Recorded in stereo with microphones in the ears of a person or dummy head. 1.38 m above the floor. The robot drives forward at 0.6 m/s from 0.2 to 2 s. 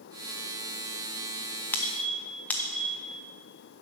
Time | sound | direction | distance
1.7 | a squeak | 10° left (ahead or behind) | 0.6 m